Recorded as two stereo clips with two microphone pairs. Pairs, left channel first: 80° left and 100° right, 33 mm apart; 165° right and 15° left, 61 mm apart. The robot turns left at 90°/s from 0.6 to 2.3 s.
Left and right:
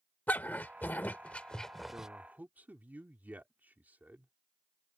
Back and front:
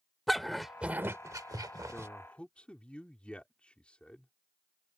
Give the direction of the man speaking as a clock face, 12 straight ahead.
2 o'clock.